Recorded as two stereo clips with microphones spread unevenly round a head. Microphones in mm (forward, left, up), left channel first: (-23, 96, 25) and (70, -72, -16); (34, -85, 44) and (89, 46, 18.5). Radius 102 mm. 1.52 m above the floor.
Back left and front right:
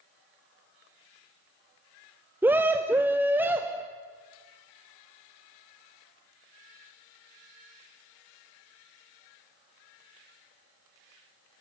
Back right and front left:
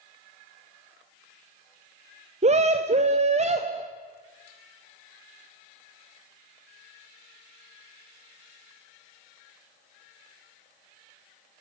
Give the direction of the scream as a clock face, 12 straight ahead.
11 o'clock.